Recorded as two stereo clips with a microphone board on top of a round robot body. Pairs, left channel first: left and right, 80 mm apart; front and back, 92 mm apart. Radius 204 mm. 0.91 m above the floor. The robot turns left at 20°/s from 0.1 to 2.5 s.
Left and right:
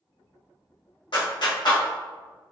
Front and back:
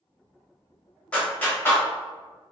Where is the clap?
75° left, 1.3 m; by 1.8 s 65° left, 1.3 m.